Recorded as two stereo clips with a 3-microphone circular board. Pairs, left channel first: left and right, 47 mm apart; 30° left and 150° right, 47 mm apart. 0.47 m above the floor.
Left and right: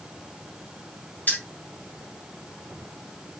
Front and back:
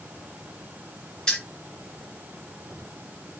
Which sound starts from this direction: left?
Keys jangling, at 1.3 s.